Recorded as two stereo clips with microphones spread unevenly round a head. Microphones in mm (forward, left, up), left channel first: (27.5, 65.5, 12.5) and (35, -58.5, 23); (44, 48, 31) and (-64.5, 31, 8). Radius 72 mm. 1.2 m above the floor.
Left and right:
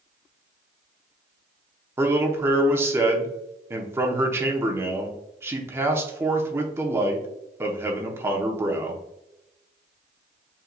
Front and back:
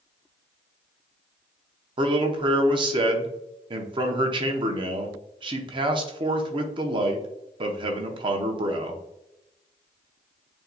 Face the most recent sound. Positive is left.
turn(degrees=-160)